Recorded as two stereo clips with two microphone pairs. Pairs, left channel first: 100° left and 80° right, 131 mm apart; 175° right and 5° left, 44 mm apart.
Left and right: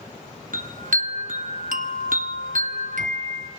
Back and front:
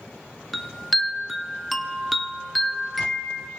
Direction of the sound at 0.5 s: 85° right.